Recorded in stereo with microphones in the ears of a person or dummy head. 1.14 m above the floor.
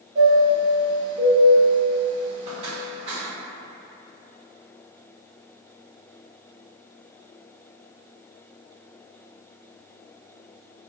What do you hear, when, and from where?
0.1 s a chime: 45° right (ahead or behind), 0.7 m